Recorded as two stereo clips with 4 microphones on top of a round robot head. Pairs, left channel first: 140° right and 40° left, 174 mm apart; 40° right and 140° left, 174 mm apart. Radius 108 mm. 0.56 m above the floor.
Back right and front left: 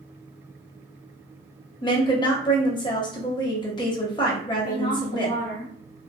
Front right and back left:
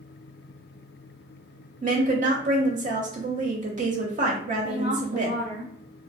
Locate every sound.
1.8 s a woman speaking: 165° left, 0.9 m
4.6 s a woman speaking: 175° left, 1.4 m